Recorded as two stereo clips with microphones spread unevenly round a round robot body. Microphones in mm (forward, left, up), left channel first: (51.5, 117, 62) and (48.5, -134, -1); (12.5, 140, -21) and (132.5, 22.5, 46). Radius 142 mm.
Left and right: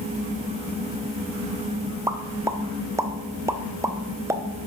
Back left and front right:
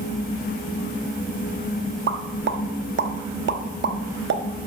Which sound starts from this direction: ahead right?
A pop, at 2.1 s.